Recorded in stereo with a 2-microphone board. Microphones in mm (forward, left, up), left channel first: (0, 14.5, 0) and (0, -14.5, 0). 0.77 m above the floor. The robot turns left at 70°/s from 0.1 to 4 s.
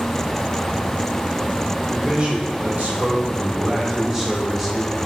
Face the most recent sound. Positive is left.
turn(degrees=-170)